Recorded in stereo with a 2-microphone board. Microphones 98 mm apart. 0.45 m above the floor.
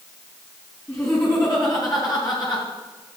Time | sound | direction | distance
0.9 | laughter | 25° left (ahead or behind) | 3.5 m